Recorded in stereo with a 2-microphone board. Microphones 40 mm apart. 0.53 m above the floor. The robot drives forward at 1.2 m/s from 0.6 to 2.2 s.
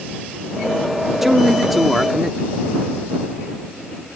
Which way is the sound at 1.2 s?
5° right (ahead or behind).